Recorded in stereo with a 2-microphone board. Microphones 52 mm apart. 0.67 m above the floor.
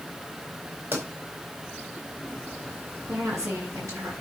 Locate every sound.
0.9 s a pop: 50° right (ahead or behind), 4.5 m
3.1 s a woman speaking: 70° right (ahead or behind), 8 m